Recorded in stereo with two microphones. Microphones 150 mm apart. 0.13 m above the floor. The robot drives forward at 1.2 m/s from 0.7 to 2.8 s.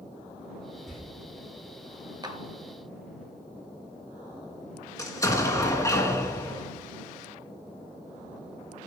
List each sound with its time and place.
0.9 s a door slam: centre (ahead or behind), 6 m
2.2 s a clap: 30° right (ahead or behind), 1.3 m
5.0 s an explosion: 20° left (ahead or behind), 1.7 m